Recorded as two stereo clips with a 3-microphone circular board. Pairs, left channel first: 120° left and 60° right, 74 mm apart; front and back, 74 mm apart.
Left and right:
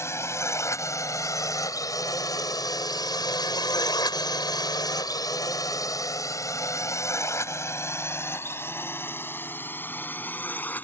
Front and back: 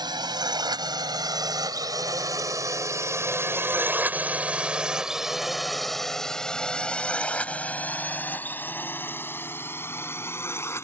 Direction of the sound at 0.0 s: 170° left.